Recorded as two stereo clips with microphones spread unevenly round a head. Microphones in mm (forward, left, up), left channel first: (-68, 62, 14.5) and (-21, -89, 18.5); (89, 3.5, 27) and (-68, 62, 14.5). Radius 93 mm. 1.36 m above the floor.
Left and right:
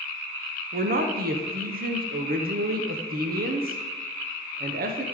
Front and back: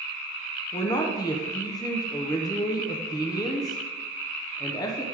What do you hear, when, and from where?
0.7 s a man speaking: 90° right, 0.8 m